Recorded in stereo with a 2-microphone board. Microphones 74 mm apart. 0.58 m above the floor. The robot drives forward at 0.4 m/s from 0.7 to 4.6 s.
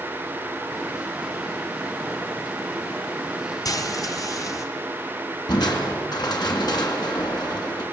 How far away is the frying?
About 1.9 m.